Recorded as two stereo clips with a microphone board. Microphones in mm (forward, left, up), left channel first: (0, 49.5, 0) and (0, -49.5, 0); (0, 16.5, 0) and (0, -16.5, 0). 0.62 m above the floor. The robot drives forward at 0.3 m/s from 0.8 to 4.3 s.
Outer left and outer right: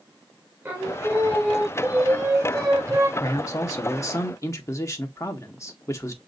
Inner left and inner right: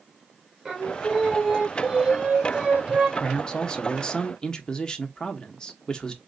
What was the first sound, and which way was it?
Singing, 20° right (ahead or behind).